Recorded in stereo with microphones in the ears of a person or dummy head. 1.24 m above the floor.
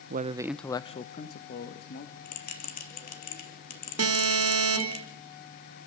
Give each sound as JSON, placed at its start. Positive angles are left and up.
{"t": 0.1, "sound": "a man speaking", "side_deg": -50, "distance_m": 0.6}
{"t": 2.2, "sound": "a bell", "side_deg": 45, "distance_m": 3.0}
{"t": 4.0, "sound": "an alarm", "side_deg": -85, "distance_m": 3.0}